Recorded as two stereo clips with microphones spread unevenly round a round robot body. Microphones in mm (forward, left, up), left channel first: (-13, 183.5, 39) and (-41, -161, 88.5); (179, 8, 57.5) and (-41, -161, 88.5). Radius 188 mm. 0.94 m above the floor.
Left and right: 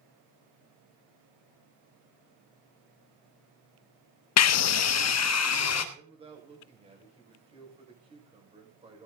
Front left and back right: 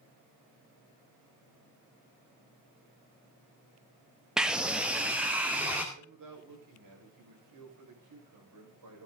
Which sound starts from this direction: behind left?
A scream, at 4.4 s.